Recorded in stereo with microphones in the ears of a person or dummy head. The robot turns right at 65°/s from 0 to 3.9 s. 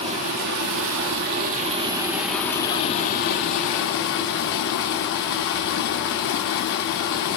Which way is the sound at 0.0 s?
150° right.